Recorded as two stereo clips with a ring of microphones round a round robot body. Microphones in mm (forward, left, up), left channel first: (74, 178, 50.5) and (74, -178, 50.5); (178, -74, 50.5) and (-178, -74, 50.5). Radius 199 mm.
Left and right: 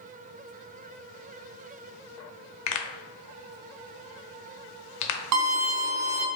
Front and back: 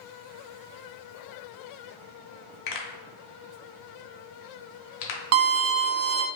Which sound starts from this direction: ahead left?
A pop, at 2.7 s.